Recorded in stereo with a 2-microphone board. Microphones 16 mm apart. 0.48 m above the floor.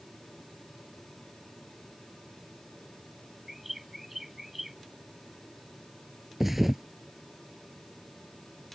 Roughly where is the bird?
Centre.